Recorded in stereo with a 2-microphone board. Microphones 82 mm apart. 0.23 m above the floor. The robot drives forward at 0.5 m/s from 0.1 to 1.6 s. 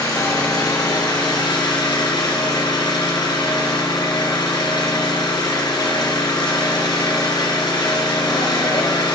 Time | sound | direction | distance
0.0 | an engine running | 45° left (ahead or behind) | 2.5 m